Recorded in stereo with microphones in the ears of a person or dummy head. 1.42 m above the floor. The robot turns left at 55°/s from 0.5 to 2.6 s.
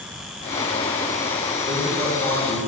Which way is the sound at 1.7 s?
135° right.